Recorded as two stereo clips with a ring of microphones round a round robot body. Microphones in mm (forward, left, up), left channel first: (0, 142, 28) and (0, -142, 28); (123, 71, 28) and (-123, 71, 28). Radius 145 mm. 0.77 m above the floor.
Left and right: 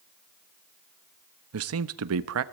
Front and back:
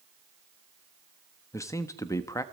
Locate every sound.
1.5 s a man speaking: 75° right, 1.0 m